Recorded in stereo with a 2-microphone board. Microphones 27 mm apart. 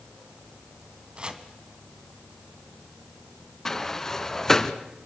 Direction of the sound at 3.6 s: 20° left (ahead or behind).